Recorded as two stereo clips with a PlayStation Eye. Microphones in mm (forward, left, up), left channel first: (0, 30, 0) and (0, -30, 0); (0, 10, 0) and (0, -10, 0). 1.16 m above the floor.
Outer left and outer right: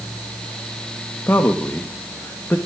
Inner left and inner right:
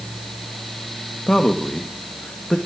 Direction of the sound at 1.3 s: 40° left (ahead or behind).